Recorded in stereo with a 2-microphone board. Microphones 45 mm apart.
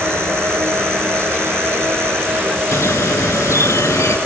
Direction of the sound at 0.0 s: 80° right.